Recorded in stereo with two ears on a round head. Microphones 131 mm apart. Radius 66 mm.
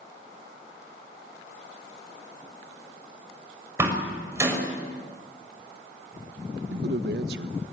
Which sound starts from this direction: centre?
A door slam, at 3.8 s.